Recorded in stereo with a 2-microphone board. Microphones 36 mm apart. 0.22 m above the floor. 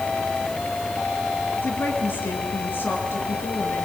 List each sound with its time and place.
1.6 s a woman speaking: 70° left (ahead or behind), 4 m